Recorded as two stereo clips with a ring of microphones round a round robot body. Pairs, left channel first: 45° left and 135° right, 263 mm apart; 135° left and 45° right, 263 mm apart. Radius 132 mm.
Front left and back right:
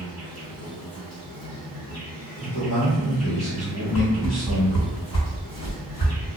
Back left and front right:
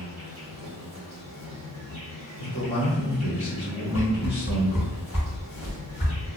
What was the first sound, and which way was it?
An insect, 35° left.